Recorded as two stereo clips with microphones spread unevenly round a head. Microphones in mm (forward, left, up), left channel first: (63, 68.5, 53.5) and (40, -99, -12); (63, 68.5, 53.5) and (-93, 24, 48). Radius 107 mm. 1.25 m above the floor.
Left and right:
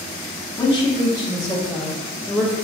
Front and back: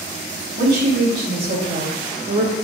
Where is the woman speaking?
170° left, 2.5 m.